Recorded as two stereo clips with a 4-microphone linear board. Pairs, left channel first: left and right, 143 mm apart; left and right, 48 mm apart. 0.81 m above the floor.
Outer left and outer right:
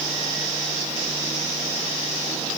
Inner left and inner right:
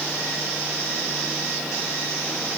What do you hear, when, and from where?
Only background noise.